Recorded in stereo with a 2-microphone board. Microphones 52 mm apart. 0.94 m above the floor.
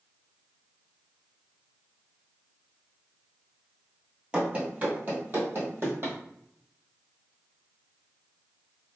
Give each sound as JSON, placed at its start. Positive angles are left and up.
{"t": 4.3, "sound": "running footsteps", "side_deg": -20, "distance_m": 1.1}